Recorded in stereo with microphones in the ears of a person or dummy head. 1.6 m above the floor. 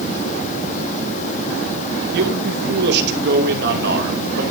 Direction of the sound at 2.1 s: 60° right (ahead or behind).